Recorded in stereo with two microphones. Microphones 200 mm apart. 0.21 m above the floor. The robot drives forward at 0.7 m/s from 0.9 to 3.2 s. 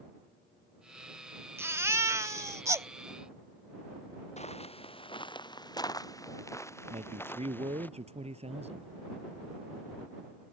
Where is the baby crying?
15° right (ahead or behind).